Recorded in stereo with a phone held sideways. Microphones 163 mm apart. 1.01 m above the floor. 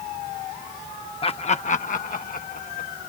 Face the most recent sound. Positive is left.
turn(degrees=65)  # may be behind; listen again after turning